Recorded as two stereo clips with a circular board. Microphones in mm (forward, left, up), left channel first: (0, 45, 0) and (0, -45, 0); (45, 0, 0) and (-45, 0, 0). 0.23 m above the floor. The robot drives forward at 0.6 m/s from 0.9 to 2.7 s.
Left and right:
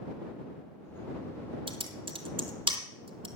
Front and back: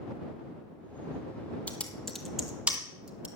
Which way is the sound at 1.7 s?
75° right.